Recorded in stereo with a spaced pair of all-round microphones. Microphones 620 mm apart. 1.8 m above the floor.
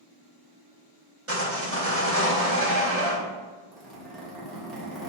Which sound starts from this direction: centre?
A zipper, at 3.7 s.